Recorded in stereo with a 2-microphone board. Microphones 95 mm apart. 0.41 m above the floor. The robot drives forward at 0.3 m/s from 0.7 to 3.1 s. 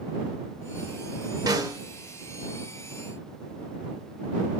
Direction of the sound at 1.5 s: 40° right (ahead or behind).